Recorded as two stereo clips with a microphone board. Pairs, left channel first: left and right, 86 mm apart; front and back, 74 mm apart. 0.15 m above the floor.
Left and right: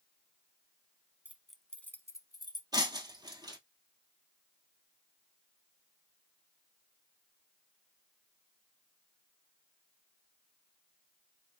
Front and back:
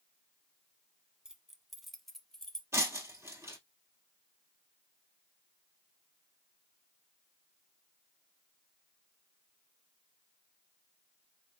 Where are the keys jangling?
115° right, 0.8 m; by 2.6 s 80° left, 1.1 m.